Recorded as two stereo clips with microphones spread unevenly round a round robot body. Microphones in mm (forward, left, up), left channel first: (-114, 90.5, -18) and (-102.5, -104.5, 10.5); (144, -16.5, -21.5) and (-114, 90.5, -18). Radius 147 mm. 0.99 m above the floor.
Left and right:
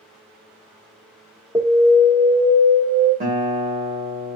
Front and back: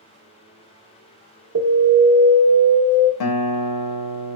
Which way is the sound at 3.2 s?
25° right.